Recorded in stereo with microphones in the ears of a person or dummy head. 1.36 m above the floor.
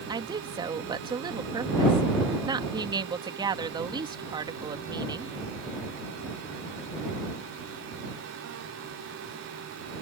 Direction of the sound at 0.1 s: 20° right (ahead or behind).